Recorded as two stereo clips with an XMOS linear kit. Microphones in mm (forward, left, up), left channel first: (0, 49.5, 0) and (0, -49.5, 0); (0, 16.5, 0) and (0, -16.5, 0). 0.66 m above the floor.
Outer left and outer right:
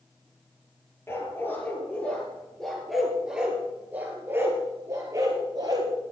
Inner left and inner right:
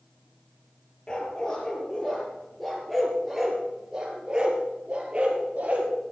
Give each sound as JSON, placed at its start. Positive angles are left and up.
{"t": 1.1, "sound": "a dog barking", "side_deg": 25, "distance_m": 4.0}